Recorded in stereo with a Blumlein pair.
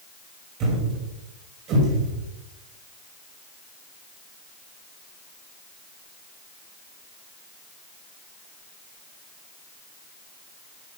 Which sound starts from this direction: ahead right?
A thud, at 0.6 s.